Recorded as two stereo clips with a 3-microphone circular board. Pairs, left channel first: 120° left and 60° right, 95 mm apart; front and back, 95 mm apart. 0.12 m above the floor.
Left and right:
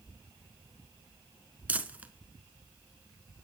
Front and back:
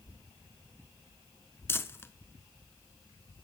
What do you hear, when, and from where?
1.7 s crumpling: 10° right, 0.7 m